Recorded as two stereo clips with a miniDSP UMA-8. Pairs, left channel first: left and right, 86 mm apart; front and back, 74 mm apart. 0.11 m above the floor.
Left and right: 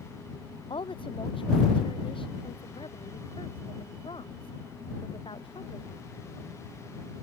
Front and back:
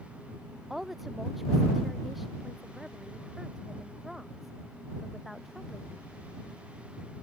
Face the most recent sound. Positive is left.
turn(degrees=95)